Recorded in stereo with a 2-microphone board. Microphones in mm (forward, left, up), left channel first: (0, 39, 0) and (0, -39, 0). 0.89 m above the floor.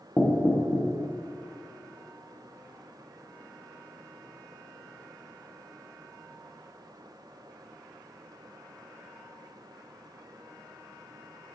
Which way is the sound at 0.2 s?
20° left (ahead or behind).